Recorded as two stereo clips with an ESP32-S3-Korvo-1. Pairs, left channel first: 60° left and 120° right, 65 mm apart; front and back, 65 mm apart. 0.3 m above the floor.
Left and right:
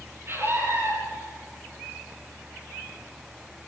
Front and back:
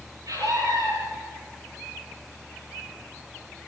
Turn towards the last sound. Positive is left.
turn(degrees=-165)